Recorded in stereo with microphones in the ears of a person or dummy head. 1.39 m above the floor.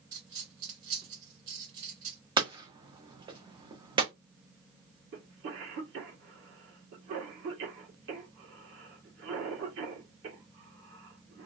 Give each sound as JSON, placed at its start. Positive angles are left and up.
{"t": 0.1, "sound": "a dropped coin", "side_deg": -25, "distance_m": 1.7}
{"t": 2.4, "sound": "hammering", "side_deg": -25, "distance_m": 0.7}
{"t": 5.1, "sound": "a cough", "side_deg": -60, "distance_m": 1.6}